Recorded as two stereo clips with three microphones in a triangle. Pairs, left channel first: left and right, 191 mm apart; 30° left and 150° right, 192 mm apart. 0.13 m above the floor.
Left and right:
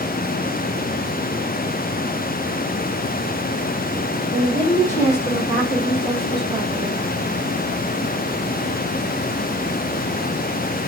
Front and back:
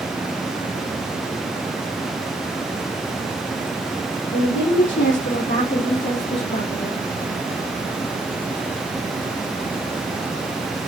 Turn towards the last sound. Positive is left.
turn(degrees=-5)